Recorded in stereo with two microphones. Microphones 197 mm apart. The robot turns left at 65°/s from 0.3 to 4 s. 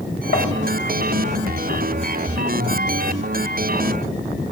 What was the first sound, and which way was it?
Tapping, 75° left (ahead or behind).